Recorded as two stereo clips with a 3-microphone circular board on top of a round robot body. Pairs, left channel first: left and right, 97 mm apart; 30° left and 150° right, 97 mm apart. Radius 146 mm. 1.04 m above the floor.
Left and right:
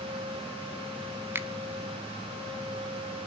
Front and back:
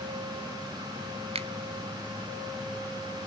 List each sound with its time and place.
1.4 s a finger snap: 160° right, 1.3 m